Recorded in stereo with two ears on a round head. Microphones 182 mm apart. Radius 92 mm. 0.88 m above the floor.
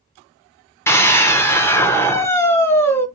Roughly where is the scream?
Centre.